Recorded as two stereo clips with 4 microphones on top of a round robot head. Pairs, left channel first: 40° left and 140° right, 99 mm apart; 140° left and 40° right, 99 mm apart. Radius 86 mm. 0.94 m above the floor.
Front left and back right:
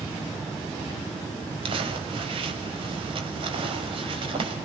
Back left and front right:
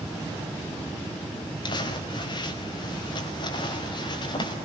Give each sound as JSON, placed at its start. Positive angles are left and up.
{"t": 1.6, "sound": "crumpling", "azimuth_deg": -175, "distance_m": 5.0}